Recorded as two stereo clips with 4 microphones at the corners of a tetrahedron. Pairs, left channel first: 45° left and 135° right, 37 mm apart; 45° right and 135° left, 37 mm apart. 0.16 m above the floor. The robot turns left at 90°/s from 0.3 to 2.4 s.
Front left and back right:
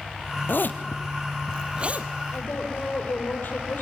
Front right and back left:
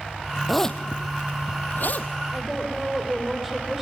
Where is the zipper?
45° left, 1.2 m; by 2.1 s 100° right, 1.2 m.